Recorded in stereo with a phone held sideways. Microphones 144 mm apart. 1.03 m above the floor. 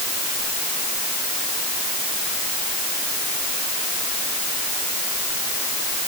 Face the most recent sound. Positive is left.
No sound to turn to.